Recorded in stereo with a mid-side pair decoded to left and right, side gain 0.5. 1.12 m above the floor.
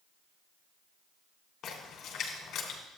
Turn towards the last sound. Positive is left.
turn(degrees=60)